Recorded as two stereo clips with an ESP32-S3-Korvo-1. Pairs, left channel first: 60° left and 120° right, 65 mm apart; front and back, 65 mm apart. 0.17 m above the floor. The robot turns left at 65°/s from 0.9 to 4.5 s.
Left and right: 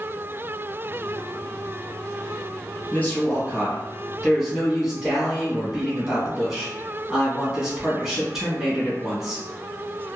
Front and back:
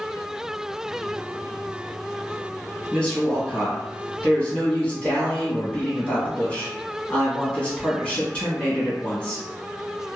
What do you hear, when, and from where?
2.9 s a woman speaking: 60° left, 1.2 m; by 9.4 s 45° right, 1.2 m